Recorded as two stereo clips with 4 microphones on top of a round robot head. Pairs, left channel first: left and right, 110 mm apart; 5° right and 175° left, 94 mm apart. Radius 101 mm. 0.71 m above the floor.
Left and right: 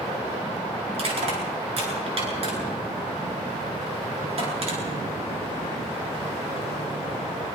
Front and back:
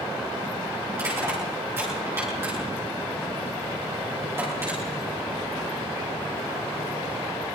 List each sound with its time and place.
0.9 s crushing: 115° right, 9.5 m